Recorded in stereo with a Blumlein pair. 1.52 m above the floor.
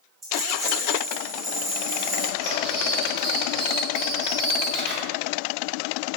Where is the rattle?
15° right, 1.9 m.